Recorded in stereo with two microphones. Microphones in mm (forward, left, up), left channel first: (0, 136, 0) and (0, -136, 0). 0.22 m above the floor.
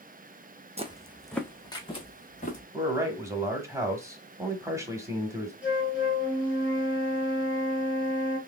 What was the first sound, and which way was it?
Footsteps, 25° right (ahead or behind).